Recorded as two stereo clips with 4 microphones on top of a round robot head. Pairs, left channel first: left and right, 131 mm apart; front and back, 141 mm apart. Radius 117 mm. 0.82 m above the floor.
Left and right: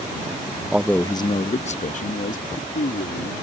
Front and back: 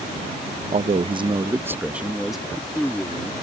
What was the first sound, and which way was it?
A man speaking, 170° right.